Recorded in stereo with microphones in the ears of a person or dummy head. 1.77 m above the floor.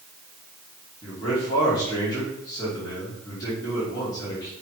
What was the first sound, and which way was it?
A man speaking, 25° left (ahead or behind).